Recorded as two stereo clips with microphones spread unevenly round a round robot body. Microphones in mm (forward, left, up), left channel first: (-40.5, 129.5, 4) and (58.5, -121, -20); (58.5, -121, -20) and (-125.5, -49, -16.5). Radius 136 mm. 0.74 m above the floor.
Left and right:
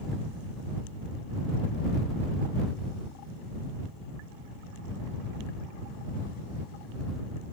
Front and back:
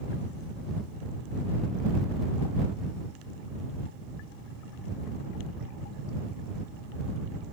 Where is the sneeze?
No sneeze in this recording.